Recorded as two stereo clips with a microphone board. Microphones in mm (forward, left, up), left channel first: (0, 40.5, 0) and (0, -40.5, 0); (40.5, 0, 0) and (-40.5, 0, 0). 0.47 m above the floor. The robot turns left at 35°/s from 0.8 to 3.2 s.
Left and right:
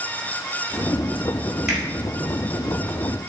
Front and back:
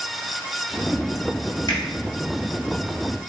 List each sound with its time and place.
1.7 s a finger snap: straight ahead, 1.9 m; by 1.8 s 5° right, 1.9 m